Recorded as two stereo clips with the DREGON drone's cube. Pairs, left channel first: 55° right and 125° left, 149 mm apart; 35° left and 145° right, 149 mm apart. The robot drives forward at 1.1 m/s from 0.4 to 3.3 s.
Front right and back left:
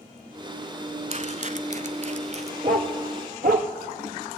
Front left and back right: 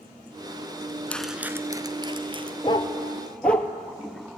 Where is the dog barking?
90° left, 1.6 m; by 3.7 s 115° left, 1.8 m.